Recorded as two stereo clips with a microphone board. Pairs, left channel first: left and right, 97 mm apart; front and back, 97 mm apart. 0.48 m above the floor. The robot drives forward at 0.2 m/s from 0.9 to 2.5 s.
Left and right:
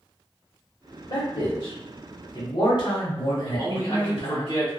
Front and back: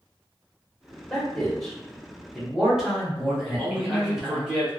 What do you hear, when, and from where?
1.1 s a man speaking: 80° left, 1.3 m; by 4.5 s 95° left, 1.3 m
3.5 s a man speaking: 105° left, 1.1 m